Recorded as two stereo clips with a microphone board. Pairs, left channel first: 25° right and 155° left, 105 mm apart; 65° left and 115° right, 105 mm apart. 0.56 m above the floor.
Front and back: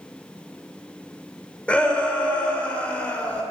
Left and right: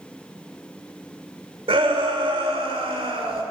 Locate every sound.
1.7 s a shout: 100° right, 1.6 m